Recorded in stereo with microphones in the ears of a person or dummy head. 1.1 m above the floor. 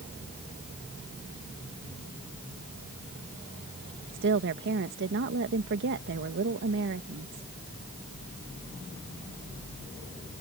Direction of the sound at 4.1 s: 60° right (ahead or behind).